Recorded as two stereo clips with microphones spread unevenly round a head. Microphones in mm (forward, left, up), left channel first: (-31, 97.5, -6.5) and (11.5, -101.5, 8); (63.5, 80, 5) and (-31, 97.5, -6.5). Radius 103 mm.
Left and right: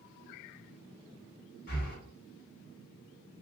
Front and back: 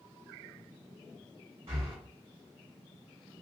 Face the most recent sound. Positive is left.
turn(degrees=150)